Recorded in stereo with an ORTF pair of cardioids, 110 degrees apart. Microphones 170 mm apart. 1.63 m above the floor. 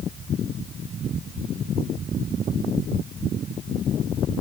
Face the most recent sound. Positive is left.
No sound to turn to.